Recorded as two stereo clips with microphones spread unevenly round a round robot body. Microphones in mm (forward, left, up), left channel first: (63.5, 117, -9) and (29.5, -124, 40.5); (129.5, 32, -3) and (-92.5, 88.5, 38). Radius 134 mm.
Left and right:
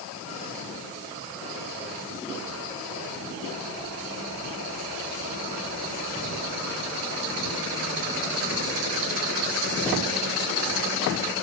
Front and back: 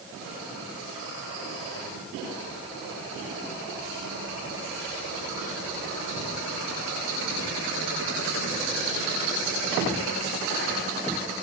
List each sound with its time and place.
Only background noise.